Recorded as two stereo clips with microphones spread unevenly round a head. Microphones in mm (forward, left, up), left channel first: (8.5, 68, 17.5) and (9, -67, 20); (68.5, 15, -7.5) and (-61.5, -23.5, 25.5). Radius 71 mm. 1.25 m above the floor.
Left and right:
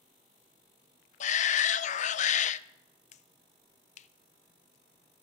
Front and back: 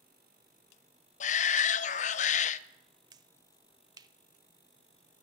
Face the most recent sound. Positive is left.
turn(degrees=130)